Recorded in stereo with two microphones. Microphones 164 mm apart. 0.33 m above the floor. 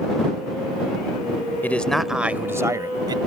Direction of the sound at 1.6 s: 10° left (ahead or behind).